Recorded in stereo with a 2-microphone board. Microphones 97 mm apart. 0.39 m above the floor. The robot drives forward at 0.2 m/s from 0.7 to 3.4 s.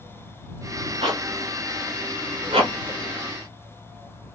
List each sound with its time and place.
1.0 s a zipper: 80° right, 1.2 m